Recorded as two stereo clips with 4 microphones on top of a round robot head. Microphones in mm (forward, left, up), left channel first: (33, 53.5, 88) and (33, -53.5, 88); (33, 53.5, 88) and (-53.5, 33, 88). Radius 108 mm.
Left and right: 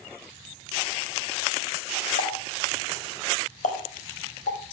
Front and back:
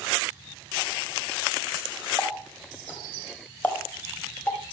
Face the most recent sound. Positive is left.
turn(degrees=85)